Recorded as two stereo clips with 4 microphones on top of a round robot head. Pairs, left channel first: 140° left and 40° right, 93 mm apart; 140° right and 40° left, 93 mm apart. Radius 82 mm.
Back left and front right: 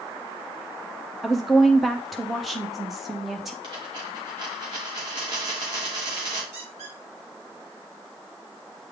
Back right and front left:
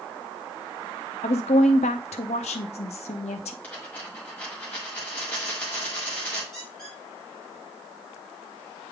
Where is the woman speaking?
135° right, 0.5 m.